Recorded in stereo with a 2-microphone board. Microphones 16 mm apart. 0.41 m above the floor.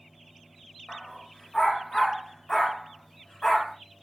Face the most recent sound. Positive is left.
turn(degrees=20)  # may be behind; listen again after turning